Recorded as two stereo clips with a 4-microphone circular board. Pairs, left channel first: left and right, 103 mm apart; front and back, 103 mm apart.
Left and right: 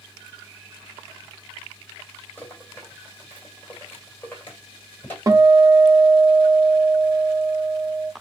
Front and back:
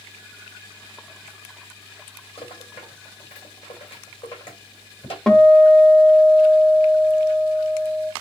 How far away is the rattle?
About 2.5 m.